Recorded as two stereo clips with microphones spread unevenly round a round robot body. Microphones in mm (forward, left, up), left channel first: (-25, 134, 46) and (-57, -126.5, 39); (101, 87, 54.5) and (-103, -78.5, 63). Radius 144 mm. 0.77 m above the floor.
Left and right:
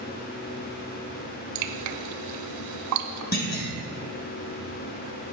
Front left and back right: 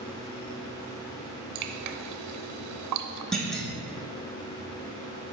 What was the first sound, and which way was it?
Dripping, 115° right.